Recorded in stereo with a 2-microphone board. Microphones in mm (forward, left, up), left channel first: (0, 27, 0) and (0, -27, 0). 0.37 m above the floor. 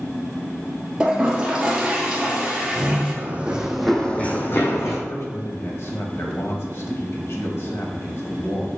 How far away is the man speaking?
About 1.9 m.